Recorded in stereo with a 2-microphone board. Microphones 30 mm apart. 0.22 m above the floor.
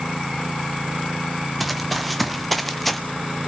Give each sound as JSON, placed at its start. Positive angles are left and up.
{"t": 1.6, "sound": "running footsteps", "side_deg": 0, "distance_m": 2.5}